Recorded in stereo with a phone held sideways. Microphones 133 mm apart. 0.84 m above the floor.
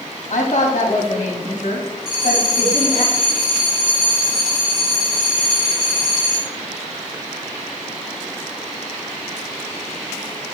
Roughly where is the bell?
Centre.